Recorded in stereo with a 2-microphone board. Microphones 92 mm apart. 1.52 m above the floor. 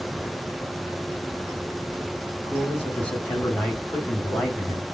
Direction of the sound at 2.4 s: 20° left (ahead or behind).